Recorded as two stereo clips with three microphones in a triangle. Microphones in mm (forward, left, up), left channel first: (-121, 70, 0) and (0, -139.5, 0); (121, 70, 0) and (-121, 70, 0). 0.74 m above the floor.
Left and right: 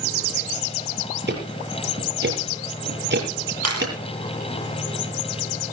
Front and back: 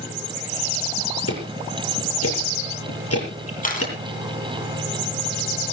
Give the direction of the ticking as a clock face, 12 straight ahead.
1 o'clock.